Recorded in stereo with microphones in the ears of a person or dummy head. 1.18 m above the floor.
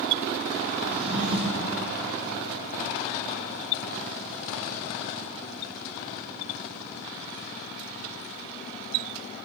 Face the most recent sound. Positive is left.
turn(degrees=-65)  # may be behind; listen again after turning